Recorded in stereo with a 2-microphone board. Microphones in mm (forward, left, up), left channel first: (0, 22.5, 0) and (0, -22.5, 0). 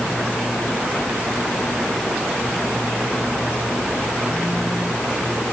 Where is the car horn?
I don't hear a car horn.